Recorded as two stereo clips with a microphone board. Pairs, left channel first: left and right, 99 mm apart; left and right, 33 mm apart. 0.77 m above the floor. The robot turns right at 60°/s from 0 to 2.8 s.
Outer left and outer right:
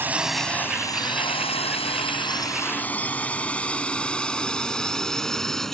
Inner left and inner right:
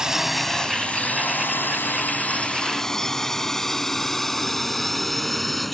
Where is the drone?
25° right (ahead or behind); by 5.7 s 5° left (ahead or behind).